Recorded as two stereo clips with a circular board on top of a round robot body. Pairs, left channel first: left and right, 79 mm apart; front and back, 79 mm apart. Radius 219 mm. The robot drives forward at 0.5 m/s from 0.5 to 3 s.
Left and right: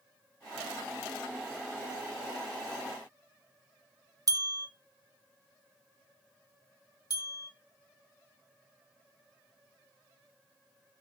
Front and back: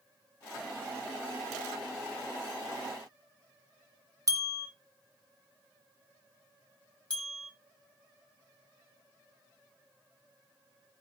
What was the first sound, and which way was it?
A bell, 135° right.